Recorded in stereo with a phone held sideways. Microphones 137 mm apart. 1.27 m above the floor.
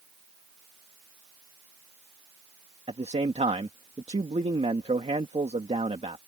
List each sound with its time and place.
2.9 s a man speaking: 50° right (ahead or behind)